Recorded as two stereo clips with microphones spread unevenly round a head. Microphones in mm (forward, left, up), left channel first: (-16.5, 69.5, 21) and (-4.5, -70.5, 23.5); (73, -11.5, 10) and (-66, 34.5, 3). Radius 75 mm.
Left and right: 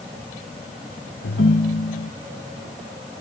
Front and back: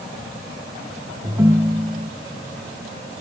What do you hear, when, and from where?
1.2 s a ringtone: 90° left